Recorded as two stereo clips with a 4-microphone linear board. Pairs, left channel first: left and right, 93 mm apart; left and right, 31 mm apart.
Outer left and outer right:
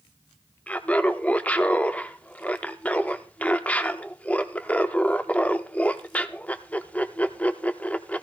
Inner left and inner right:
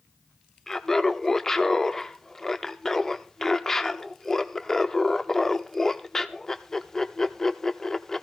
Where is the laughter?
15° left (ahead or behind), 0.7 m.